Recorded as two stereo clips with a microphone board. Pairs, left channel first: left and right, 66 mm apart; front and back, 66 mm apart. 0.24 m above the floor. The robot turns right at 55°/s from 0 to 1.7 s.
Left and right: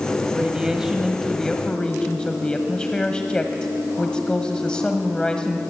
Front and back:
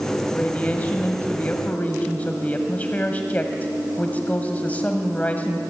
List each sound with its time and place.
0.3 s a woman speaking: 45° right, 1.7 m; by 5.6 s 30° left, 1.7 m